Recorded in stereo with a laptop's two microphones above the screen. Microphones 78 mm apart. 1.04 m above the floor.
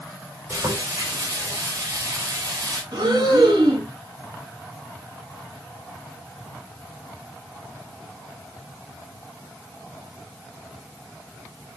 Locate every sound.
0.5 s frying: 45° right (ahead or behind), 4.5 m
2.9 s breathing: 60° right (ahead or behind), 5.5 m